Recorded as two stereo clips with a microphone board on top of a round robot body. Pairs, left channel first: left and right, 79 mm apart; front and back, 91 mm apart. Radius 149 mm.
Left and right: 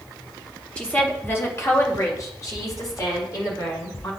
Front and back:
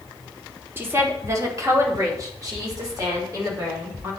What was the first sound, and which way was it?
A woman speaking, 150° left.